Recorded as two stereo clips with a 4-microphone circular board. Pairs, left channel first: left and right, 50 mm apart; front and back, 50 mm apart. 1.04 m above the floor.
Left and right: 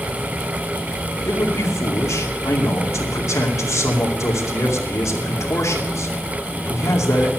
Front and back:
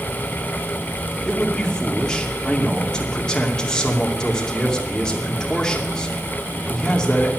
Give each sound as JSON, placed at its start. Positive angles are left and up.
{"t": 1.2, "sound": "a man speaking", "azimuth_deg": 75, "distance_m": 2.5}